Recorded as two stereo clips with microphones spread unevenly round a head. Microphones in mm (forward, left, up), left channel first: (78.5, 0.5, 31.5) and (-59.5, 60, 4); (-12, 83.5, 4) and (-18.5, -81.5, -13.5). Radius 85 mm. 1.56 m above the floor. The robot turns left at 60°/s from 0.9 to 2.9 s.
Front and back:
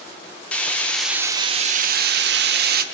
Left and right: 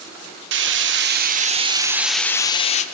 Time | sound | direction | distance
0.5 | frying | 110° right | 1.0 m